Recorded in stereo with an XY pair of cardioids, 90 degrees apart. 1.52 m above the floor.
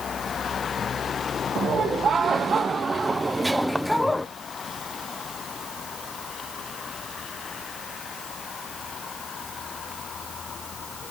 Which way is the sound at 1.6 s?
60° right.